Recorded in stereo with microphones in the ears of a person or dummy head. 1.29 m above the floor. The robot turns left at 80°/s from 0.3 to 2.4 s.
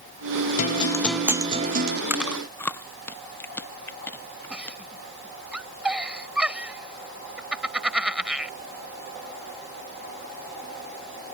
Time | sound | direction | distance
0.6 | a guitar | 50° left | ?
2.1 | chewing | 10° right (ahead or behind) | ?
4.5 | a giggle | 5° right (ahead or behind) | ?